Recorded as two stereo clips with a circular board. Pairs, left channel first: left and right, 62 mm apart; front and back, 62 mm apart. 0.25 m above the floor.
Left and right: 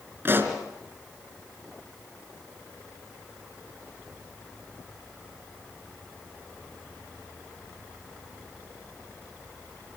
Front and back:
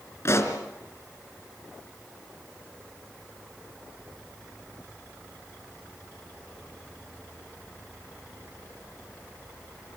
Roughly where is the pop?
Ahead right.